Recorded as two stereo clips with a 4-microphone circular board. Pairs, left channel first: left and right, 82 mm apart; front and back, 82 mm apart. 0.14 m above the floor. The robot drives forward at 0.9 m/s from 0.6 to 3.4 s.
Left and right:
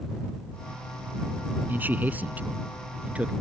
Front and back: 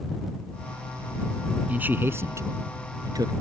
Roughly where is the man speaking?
Behind right.